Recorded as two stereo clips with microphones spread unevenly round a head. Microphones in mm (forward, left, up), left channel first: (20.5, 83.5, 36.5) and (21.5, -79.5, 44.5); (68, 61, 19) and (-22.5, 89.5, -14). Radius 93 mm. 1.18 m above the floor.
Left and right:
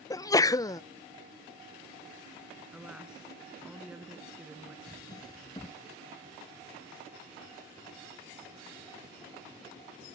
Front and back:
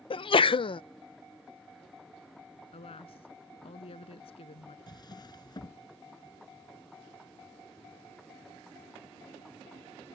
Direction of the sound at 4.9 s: 25° left.